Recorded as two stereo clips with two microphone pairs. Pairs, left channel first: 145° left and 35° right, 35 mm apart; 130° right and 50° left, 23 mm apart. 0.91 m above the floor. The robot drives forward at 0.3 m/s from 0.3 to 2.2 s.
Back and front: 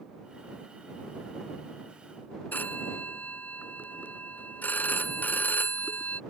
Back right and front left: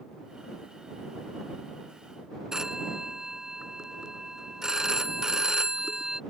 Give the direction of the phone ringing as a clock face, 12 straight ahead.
8 o'clock.